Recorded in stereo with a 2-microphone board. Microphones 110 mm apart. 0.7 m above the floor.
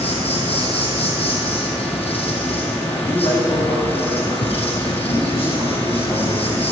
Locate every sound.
0.0 s an insect: 65° left (ahead or behind), 2 m
2.9 s a man speaking: 55° left (ahead or behind), 5 m